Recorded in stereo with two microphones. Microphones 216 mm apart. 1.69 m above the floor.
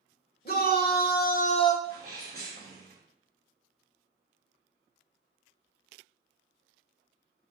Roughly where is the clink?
No clink in this recording.